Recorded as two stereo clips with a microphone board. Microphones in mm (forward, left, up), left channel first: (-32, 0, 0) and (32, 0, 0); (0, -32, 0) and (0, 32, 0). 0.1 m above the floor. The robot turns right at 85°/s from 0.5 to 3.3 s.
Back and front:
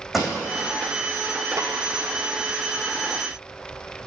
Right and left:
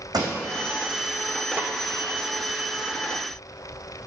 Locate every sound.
0.1 s a pop: 85° left, 3.5 m
1.6 s a snare drum: 25° left, 1.7 m; by 1.7 s 40° left, 1.7 m